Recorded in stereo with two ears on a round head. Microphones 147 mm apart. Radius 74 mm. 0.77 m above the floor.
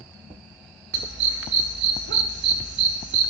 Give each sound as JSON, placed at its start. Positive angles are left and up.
{"t": 0.9, "sound": "a dog barking", "side_deg": -75, "distance_m": 1.1}